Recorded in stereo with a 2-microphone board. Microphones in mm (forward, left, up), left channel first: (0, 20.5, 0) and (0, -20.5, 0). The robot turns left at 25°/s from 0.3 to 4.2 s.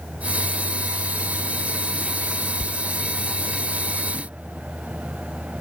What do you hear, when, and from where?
2.6 s a door slam: 15° left (ahead or behind)